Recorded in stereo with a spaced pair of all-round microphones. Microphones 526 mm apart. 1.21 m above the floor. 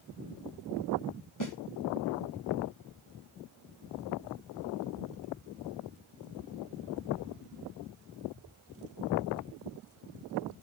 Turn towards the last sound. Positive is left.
turn(degrees=35)  # may be behind; listen again after turning